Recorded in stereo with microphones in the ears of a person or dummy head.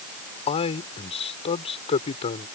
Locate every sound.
0.5 s a man speaking: 35° left (ahead or behind)